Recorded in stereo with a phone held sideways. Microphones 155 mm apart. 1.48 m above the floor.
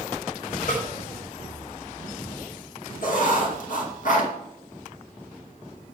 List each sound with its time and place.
0.7 s a snare drum: 65° left (ahead or behind), 5 m
3.0 s writing: 60° left (ahead or behind), 2.0 m